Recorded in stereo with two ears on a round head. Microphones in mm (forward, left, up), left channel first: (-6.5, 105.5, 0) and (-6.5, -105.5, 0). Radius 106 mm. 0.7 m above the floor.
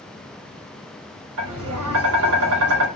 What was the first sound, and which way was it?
Tapping, 65° right (ahead or behind).